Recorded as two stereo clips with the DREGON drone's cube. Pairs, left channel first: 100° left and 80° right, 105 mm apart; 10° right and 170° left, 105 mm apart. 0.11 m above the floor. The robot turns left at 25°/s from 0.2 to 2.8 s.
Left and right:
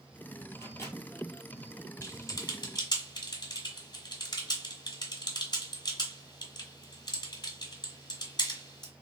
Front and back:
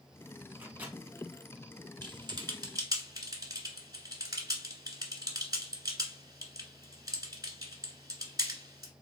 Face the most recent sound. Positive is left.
turn(degrees=130)